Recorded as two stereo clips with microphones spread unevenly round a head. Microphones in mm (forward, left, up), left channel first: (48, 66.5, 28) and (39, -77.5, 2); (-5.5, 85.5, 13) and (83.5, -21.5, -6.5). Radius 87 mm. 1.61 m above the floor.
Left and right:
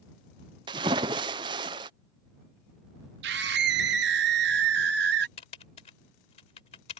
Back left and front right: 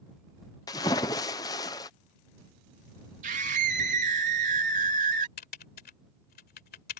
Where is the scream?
105° right.